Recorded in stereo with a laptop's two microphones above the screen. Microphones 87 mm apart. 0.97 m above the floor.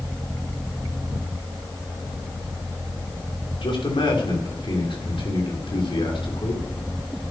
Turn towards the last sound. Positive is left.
turn(degrees=80)